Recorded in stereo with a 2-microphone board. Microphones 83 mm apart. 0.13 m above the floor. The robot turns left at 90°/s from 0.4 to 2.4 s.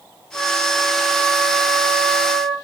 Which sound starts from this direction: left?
A flute, at 0.3 s.